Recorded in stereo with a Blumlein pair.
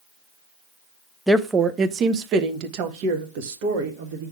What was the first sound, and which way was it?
A woman speaking, 5° right.